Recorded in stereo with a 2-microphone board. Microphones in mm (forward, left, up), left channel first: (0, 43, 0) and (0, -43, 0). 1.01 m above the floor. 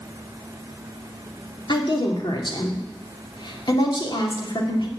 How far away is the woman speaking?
About 2.5 m.